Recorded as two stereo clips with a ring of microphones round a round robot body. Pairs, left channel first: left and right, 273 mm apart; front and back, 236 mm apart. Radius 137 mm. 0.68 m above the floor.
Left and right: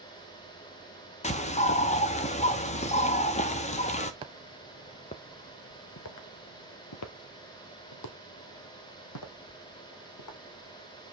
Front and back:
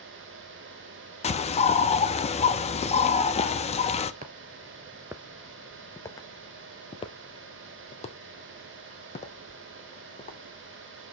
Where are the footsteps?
150° right, 0.7 m; by 10.4 s 60° left, 3 m.